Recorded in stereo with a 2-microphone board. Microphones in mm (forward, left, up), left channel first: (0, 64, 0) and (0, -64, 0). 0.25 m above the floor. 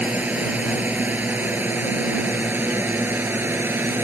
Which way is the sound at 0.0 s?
10° right (ahead or behind).